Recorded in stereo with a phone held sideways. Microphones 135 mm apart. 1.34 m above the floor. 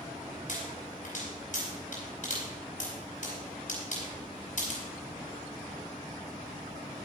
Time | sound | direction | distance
0.5 | a pop | 60° left (ahead or behind) | 5 m